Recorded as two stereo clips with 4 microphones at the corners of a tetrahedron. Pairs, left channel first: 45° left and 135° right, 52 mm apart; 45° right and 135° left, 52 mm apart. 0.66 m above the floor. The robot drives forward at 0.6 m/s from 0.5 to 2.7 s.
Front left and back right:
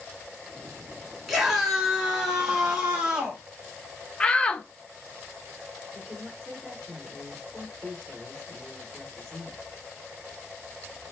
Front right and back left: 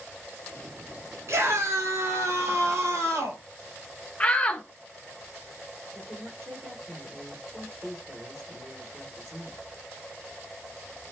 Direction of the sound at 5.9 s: 175° right.